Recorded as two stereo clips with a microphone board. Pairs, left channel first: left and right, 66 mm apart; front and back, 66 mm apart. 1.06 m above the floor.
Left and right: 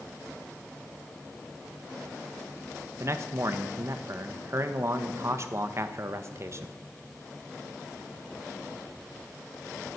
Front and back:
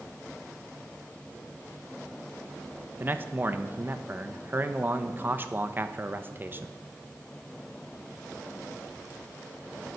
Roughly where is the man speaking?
Behind right.